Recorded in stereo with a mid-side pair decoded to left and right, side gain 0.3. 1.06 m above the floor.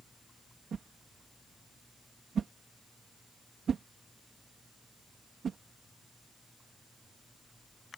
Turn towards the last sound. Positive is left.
turn(degrees=-70)